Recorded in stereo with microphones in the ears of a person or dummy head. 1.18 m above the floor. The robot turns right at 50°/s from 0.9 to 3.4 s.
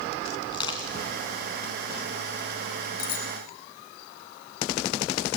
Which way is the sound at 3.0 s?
60° left (ahead or behind).